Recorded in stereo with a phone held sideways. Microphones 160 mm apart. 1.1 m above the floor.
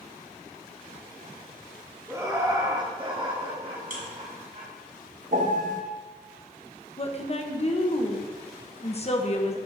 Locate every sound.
2.1 s laughter: 15° right (ahead or behind), 2.5 m; by 4.7 s 55° right (ahead or behind), 3 m
3.9 s a buzzer: 60° right (ahead or behind), 2 m
5.3 s a piano: 55° right (ahead or behind), 1.1 m
7.0 s a woman speaking: 40° left (ahead or behind), 1.1 m